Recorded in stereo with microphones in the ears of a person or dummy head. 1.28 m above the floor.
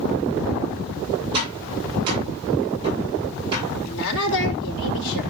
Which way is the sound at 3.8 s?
65° left (ahead or behind).